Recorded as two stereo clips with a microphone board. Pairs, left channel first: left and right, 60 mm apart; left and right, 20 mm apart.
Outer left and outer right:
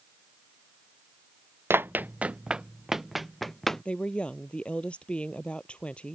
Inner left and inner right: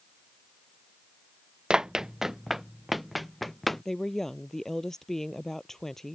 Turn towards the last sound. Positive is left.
turn(degrees=20)  # may be behind; listen again after turning